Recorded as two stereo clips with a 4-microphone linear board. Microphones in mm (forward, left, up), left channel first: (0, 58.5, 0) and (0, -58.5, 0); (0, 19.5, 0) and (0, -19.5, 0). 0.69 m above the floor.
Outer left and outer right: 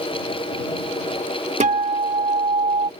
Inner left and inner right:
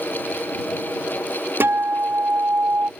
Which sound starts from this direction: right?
A guitar, at 1.6 s.